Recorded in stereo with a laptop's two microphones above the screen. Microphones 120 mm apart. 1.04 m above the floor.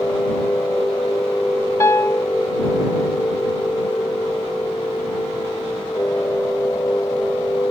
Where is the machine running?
20° left (ahead or behind).